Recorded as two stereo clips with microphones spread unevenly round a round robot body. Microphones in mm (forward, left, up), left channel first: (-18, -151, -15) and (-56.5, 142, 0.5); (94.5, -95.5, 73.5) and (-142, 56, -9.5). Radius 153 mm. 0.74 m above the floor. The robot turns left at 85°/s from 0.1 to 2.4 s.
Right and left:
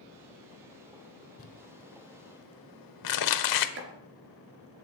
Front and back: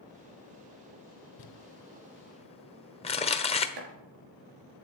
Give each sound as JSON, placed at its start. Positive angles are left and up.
{"t": 1.4, "sound": "crumpling", "azimuth_deg": -15, "distance_m": 1.2}
{"t": 3.8, "sound": "chopping", "azimuth_deg": 145, "distance_m": 3.0}